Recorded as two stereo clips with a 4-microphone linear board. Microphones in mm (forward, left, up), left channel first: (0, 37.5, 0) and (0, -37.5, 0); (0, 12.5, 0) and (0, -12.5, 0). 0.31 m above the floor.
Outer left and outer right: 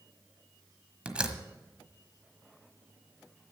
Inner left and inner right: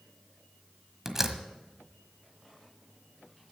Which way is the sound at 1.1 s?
15° right (ahead or behind).